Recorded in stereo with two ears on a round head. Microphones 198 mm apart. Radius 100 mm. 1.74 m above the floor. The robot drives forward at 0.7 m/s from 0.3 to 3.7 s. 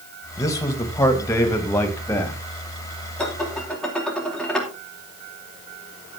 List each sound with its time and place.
0.4 s a man speaking: 15° left (ahead or behind), 2 m; by 2.4 s 10° left (ahead or behind), 3.5 m
3.2 s dishes clattering: 5° left (ahead or behind), 3.5 m